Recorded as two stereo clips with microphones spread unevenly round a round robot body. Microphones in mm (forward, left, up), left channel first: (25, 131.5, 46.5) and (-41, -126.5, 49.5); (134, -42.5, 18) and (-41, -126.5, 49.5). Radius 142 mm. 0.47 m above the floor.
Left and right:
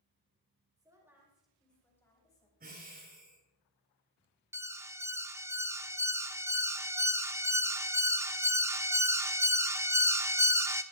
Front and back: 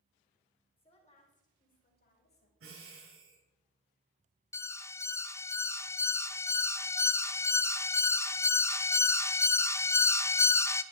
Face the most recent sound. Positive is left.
turn(degrees=-30)